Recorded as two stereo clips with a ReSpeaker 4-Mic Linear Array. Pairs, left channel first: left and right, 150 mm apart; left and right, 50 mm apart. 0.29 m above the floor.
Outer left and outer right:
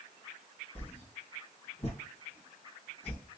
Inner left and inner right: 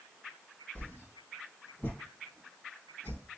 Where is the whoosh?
45° left (ahead or behind), 1.2 m.